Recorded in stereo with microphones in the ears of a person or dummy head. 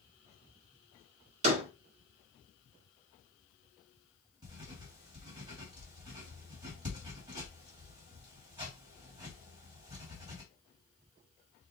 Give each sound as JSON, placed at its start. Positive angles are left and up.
{"t": 1.4, "sound": "a door slam", "side_deg": -45, "distance_m": 1.7}
{"t": 4.4, "sound": "writing", "side_deg": -20, "distance_m": 3.0}